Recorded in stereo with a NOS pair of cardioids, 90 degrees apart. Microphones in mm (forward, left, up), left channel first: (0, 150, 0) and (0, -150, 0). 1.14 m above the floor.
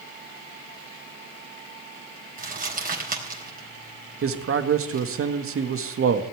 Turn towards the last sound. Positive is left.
turn(degrees=-45)